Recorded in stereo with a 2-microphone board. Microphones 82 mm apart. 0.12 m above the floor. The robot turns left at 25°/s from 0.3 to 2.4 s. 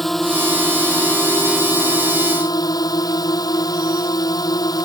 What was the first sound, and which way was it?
A drone, straight behind.